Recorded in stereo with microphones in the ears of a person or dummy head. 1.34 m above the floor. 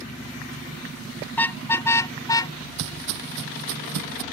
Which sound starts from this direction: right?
Footsteps, at 2.8 s.